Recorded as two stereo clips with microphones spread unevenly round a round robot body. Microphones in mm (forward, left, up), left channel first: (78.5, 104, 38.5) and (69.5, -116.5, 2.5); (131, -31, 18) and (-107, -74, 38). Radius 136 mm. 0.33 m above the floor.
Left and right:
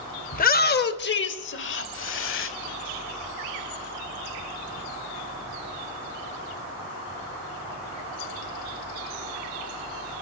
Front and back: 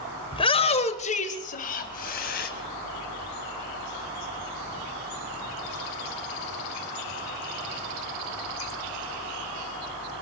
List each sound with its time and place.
0.3 s a shout: 55° left, 1.4 m; by 2.5 s 60° left, 2.5 m